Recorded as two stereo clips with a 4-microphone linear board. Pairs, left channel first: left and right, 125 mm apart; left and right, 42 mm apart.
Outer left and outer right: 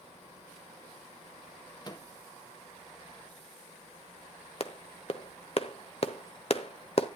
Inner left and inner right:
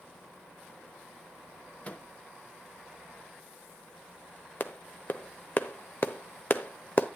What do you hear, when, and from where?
1.8 s a microwave: 35° left (ahead or behind), 1.1 m
4.6 s a clap: 55° left (ahead or behind), 0.9 m